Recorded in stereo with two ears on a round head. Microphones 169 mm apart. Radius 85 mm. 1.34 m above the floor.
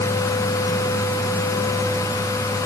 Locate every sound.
Only background noise.